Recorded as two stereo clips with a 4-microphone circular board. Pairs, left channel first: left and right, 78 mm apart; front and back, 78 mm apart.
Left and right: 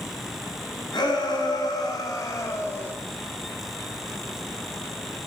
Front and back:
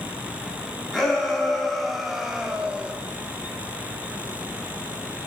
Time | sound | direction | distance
0.9 | a shout | 85° left | 3 m